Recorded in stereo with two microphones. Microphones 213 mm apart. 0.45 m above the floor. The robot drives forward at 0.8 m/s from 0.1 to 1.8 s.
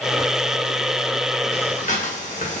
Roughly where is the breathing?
Left.